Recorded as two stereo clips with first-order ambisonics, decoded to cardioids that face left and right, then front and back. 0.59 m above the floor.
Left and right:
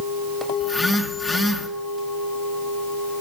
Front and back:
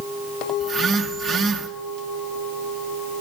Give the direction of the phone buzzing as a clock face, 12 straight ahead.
7 o'clock.